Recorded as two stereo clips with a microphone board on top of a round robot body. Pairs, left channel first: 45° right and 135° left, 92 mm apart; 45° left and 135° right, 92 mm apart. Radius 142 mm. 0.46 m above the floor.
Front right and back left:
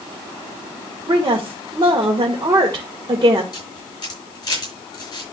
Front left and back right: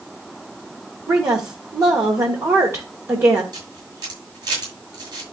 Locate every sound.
1.1 s a woman speaking: 170° left, 1.7 m
3.5 s a camera shutter: 90° right, 6.5 m